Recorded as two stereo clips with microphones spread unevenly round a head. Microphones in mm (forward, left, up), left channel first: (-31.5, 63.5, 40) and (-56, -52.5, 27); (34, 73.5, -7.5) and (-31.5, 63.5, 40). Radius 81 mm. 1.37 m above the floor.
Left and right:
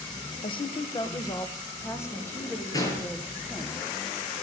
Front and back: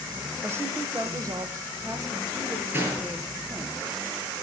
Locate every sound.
0.4 s a woman speaking: 120° left, 1.1 m; by 3.7 s 155° left, 3.5 m
2.7 s a gunshot: 140° left, 7 m